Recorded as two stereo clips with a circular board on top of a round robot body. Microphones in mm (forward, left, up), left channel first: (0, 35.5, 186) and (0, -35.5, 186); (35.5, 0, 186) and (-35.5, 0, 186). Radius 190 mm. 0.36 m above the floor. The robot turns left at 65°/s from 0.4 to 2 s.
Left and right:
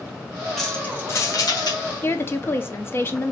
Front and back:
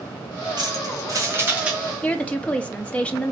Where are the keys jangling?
Straight behind, 1.8 m; by 1.8 s 100° left, 1.8 m.